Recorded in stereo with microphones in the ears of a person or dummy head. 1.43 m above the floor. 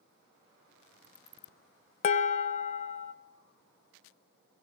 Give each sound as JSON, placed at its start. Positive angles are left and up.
{"t": 2.0, "sound": "dishes clattering", "side_deg": 40, "distance_m": 0.7}